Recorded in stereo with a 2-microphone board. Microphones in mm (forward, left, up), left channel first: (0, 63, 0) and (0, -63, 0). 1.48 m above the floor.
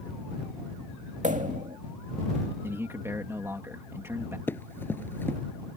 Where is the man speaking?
20° right (ahead or behind).